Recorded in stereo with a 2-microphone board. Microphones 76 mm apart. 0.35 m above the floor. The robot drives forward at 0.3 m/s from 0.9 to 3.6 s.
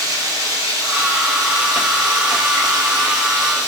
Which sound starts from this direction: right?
Running water, at 0.0 s.